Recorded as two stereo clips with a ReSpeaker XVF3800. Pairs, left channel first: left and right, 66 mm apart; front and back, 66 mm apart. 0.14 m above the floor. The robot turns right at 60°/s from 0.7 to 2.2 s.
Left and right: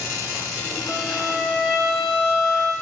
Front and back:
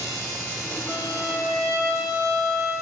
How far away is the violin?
About 0.8 m.